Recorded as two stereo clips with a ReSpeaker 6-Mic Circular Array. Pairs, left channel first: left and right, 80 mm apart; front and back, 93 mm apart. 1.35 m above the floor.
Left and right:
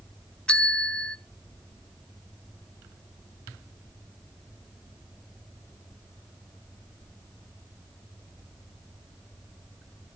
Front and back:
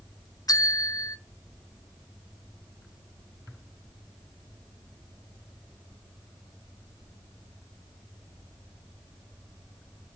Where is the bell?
20° left, 0.5 m.